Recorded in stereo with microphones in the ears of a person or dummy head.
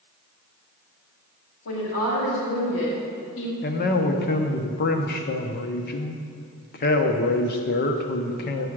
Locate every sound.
1.6 s a woman speaking: 75° left (ahead or behind), 3 m; by 3.5 s 65° left (ahead or behind), 1.7 m
3.6 s a man speaking: 50° left (ahead or behind), 0.8 m